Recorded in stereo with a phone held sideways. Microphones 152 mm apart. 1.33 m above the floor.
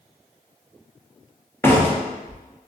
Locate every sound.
1.6 s a door slam: 15° left (ahead or behind), 0.5 m